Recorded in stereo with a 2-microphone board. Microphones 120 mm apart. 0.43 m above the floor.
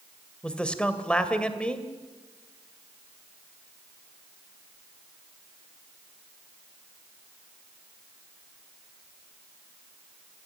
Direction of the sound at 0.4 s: 10° left (ahead or behind).